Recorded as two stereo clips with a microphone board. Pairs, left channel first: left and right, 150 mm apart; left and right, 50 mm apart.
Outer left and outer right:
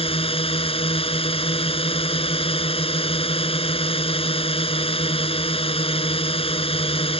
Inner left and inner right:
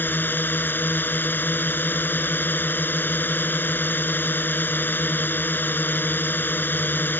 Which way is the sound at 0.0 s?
40° left (ahead or behind).